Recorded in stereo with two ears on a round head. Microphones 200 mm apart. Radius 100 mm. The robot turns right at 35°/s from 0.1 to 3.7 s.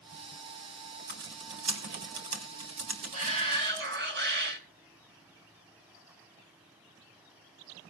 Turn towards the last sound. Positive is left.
turn(degrees=-50)  # may be behind; listen again after turning